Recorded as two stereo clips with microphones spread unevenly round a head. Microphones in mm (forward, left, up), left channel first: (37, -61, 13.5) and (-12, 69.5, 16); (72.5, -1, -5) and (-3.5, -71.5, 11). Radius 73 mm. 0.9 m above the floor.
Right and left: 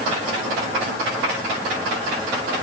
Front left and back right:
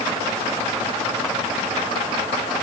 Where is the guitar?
I don't hear a guitar.